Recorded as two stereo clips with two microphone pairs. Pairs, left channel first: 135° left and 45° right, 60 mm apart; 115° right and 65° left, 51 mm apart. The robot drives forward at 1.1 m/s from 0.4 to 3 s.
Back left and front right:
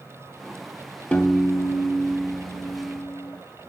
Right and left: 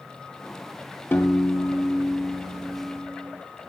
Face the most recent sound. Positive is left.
turn(degrees=-170)